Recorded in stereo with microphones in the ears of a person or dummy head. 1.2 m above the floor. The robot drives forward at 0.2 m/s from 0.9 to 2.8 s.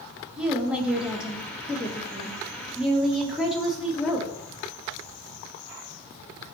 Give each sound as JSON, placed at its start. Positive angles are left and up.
{"t": 0.4, "sound": "a woman speaking", "side_deg": -5, "distance_m": 1.1}